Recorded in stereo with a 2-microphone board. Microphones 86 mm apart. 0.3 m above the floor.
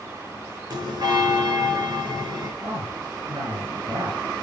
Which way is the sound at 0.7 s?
55° right (ahead or behind).